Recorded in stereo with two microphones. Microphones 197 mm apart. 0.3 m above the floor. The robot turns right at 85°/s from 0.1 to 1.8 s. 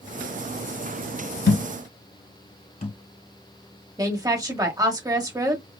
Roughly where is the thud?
Left.